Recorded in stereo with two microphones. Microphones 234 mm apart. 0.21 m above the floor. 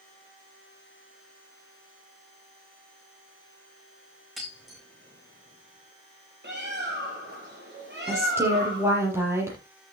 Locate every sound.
4.4 s breaking glass: centre (ahead or behind), 6.5 m
6.4 s a bird: 45° right (ahead or behind), 4.5 m
8.1 s a woman speaking: 10° right (ahead or behind), 6.5 m